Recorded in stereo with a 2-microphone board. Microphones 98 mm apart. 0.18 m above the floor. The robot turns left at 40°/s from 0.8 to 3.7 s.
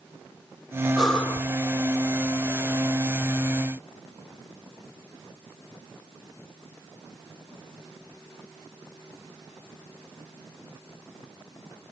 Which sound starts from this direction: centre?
Breathing, at 1.0 s.